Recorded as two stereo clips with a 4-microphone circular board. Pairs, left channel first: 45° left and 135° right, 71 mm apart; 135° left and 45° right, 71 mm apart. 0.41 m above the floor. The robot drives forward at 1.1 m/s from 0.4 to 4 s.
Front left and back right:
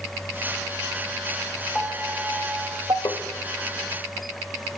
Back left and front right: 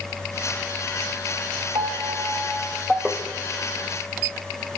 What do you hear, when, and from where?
1.8 s a piano: 40° right, 1.0 m; by 3.0 s 135° right, 0.9 m
3.0 s tapping: 35° left, 0.6 m; by 3.2 s 50° left, 0.5 m